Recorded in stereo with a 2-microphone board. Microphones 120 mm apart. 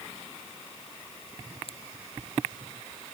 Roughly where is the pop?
Left.